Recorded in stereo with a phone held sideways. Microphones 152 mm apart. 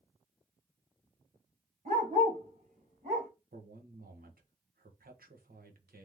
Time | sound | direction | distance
1.9 | a dog barking | 60° right (ahead or behind) | 1.7 m
3.5 | a man speaking | 75° right (ahead or behind) | 1.0 m